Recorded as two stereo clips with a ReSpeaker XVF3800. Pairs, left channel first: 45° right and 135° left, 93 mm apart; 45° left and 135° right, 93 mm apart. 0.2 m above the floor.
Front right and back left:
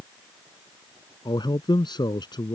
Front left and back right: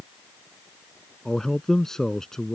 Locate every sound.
1.2 s a man speaking: 40° right